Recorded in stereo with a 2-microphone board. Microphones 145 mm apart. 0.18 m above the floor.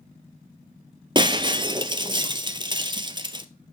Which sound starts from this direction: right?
Breaking glass, at 1.1 s.